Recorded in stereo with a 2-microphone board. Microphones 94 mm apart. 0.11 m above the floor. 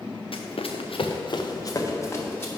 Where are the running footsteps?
75° left (ahead or behind), 0.9 m; by 2.5 s 20° left (ahead or behind), 1.6 m.